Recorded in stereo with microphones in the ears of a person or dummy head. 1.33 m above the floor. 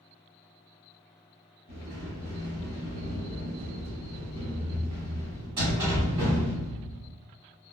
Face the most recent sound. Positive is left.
turn(degrees=-20)  # may be behind; listen again after turning